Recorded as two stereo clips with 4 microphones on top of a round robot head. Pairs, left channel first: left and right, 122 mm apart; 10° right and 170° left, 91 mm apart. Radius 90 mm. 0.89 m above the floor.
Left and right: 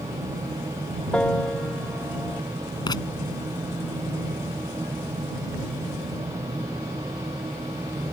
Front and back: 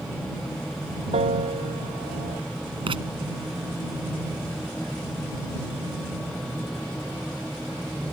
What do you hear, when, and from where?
1.1 s a piano: 170° left
2.9 s writing: 145° left